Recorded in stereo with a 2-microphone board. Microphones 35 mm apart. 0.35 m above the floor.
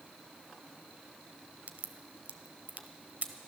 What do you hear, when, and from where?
1.7 s a crack: 55° right (ahead or behind), 0.8 m